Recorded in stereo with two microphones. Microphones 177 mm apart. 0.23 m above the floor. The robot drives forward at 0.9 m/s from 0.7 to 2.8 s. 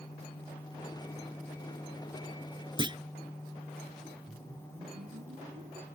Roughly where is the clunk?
Right.